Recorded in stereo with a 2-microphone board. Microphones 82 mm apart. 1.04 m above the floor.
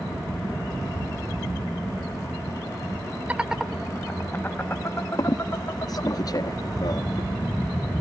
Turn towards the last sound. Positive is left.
turn(degrees=50)  # may be behind; listen again after turning